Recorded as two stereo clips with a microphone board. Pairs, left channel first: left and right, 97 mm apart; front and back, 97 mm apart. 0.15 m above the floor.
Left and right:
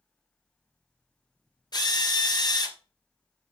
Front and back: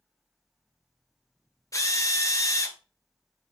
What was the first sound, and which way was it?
A drill, 55° left.